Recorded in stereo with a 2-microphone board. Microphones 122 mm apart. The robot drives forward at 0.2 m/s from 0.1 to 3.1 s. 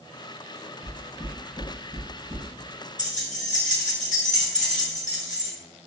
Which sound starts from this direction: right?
Knocking, at 0.8 s.